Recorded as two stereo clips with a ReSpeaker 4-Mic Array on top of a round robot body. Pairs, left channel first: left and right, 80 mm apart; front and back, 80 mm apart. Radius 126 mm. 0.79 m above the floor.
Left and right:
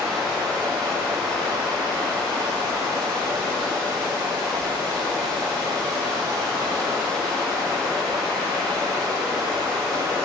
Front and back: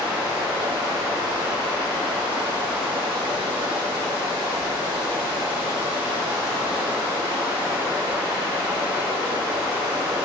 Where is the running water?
170° left, 2.5 m.